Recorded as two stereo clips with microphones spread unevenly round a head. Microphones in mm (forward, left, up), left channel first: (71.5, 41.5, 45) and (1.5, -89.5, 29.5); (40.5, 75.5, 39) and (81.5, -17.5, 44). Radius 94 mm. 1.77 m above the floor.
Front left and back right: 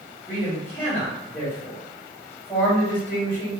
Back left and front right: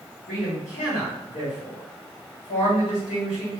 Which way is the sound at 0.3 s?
140° left.